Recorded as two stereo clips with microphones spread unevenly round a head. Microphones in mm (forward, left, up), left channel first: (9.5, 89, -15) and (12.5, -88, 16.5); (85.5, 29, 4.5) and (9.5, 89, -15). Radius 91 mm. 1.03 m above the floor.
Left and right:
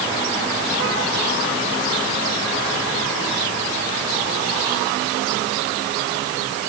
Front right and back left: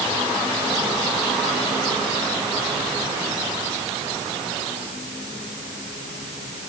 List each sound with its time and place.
Only background noise.